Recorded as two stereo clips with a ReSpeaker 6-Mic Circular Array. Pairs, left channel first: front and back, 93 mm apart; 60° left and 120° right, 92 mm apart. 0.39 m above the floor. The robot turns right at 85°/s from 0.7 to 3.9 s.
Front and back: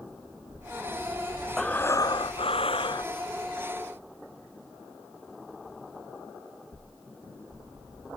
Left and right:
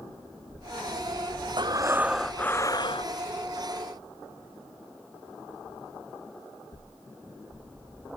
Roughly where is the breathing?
Right.